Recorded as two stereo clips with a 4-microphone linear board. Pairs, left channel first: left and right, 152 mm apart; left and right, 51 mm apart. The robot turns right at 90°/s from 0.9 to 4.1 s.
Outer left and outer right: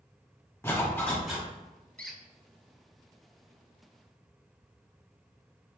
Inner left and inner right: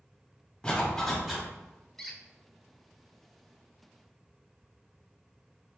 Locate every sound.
0.6 s a zipper: 150° left, 1.3 m; by 1.5 s 160° right, 1.3 m
2.0 s a squeak: 10° left (ahead or behind), 0.6 m; by 2.2 s 10° right (ahead or behind), 0.6 m